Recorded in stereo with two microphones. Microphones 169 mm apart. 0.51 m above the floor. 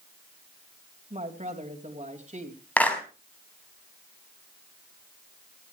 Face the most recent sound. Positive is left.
turn(degrees=10)  # may be behind; listen again after turning